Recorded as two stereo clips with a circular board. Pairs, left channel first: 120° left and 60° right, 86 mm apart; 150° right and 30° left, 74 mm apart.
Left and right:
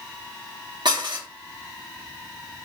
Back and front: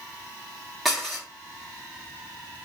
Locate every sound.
0.8 s dishes clattering: 60° right, 2.0 m